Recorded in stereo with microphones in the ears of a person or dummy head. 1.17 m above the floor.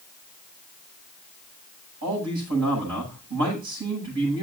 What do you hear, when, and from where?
2.0 s a man speaking: 75° right (ahead or behind), 9 m